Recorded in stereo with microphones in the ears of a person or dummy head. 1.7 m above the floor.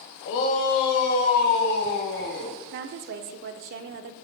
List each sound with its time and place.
0.2 s a shout: 55° left (ahead or behind), 1.3 m; by 2.5 s 65° left (ahead or behind), 3 m
2.7 s a woman speaking: 50° right (ahead or behind), 0.5 m